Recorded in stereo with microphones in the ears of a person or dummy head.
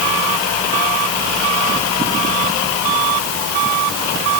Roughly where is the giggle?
No giggle in this recording.